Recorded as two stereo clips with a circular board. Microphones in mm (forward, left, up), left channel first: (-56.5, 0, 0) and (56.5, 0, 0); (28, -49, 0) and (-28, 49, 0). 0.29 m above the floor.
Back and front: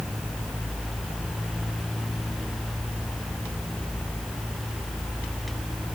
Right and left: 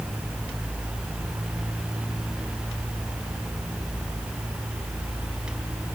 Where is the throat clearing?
I don't hear throat clearing.